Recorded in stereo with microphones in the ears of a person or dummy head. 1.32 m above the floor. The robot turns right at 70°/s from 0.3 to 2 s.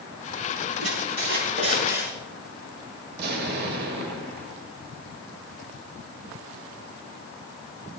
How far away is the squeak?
About 7.5 m.